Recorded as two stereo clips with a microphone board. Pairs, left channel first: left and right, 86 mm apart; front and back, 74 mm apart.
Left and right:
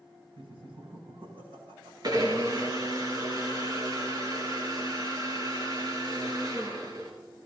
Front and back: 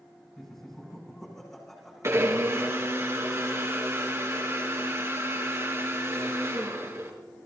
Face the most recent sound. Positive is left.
turn(degrees=-130)